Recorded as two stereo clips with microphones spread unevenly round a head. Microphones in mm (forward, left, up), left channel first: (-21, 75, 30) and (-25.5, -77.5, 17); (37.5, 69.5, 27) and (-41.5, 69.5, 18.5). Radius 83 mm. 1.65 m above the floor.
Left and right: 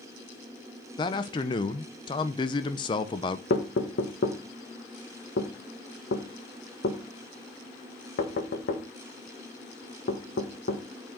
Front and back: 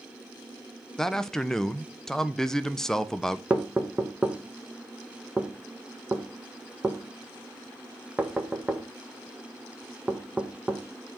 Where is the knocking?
105° left, 1.5 m.